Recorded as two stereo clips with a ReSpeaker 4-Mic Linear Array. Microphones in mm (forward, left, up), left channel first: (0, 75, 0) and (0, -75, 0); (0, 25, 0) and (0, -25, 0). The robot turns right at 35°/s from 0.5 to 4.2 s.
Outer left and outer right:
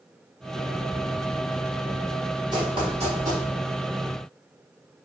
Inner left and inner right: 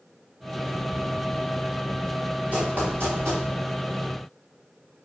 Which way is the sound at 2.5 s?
25° right (ahead or behind).